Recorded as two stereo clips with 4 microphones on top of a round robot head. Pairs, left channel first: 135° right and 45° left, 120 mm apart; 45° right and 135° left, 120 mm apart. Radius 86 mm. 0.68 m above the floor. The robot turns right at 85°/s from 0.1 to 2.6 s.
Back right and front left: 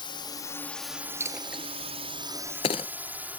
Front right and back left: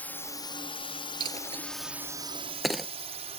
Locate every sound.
0.0 s a drone: 120° right; by 3.4 s 120° left
1.2 s a dropped coin: 105° left; by 3.4 s 140° right